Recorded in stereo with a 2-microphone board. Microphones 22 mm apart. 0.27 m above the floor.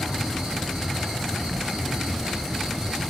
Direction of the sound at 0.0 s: 70° right (ahead or behind).